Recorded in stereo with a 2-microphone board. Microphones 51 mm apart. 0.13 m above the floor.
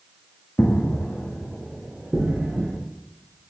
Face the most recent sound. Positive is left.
turn(degrees=-25)  # may be behind; listen again after turning